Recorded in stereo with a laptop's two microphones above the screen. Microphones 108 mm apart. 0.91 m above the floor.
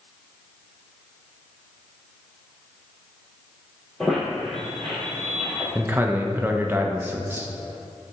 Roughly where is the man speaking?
Centre.